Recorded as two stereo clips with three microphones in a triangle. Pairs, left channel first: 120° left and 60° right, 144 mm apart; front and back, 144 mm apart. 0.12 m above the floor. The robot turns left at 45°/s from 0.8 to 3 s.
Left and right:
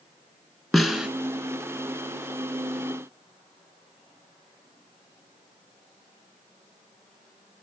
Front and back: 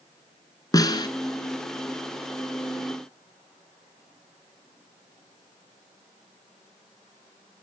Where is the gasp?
No gasp in this recording.